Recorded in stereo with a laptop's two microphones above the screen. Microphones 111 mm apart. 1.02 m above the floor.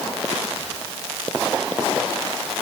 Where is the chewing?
No chewing in this recording.